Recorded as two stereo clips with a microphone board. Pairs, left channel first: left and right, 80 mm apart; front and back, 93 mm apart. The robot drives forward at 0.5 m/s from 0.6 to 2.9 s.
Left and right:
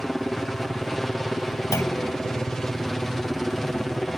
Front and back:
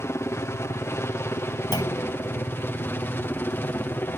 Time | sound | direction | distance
0.0 | a helicopter | 5° left | ?
1.7 | a clunk | 40° left | ?